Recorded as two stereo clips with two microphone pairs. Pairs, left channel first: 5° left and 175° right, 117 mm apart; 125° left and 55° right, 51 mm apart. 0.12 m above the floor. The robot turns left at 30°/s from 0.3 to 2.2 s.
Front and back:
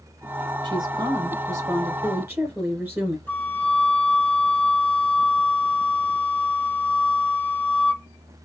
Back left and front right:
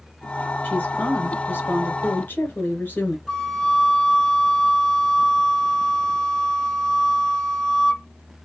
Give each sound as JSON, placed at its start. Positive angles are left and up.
{"t": 0.6, "sound": "a woman speaking", "azimuth_deg": 170, "distance_m": 1.9}
{"t": 3.3, "sound": "a flute", "azimuth_deg": 60, "distance_m": 0.9}